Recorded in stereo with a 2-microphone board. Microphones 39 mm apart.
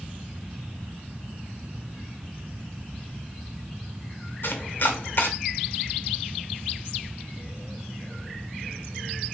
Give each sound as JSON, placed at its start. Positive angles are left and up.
{"t": 4.4, "sound": "chopping", "side_deg": 60, "distance_m": 0.6}